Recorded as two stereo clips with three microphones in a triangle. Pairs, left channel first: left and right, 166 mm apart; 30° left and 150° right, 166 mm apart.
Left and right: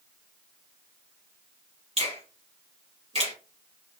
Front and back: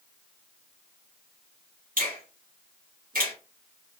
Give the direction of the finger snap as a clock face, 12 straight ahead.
5 o'clock.